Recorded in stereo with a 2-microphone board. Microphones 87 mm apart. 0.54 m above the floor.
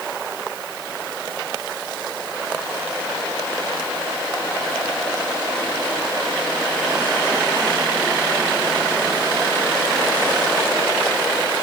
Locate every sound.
Only background noise.